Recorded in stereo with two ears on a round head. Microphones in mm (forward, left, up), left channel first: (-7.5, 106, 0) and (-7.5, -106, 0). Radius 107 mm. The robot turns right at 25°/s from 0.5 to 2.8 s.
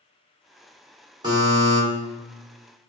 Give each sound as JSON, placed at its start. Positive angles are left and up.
{"t": 1.2, "sound": "a buzzer", "side_deg": -20, "distance_m": 1.7}